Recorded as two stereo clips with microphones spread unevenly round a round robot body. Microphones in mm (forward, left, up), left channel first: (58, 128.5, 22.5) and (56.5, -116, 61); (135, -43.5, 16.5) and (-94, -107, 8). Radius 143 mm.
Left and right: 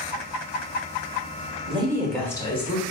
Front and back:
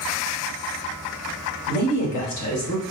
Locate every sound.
1.7 s a woman speaking: 25° right, 1.2 m; by 2.8 s 40° left, 1.5 m